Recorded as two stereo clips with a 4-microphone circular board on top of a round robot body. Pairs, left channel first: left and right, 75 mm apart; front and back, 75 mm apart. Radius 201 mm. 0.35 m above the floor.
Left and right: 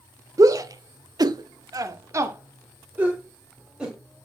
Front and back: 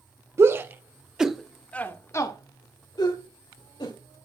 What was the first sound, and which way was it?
A shout, 130° right.